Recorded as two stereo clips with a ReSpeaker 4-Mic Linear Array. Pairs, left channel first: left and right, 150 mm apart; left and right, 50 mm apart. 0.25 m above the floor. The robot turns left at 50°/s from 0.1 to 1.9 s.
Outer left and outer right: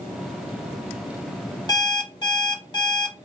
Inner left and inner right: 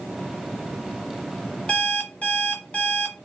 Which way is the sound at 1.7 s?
25° left (ahead or behind).